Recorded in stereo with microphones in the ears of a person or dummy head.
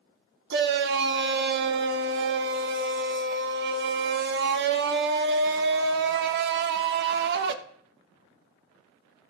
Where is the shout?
65° right (ahead or behind), 1.2 m.